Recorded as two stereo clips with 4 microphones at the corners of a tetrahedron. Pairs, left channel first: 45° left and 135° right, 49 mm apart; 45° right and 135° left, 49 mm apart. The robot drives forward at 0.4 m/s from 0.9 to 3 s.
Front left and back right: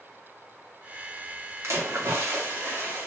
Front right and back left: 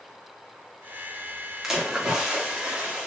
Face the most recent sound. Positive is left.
turn(degrees=-155)